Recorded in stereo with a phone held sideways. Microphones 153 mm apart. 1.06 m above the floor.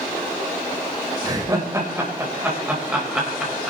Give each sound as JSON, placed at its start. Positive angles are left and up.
{"t": 1.2, "sound": "laughter", "side_deg": -25, "distance_m": 4.5}